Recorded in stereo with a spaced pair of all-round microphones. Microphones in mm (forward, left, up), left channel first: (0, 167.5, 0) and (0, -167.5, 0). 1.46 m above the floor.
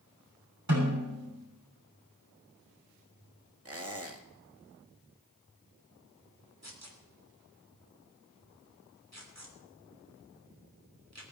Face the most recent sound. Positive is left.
turn(degrees=-50)  # may be behind; listen again after turning